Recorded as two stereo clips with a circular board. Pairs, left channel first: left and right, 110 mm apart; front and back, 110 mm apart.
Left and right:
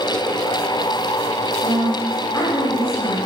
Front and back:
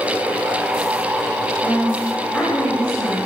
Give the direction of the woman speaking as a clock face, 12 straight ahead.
9 o'clock.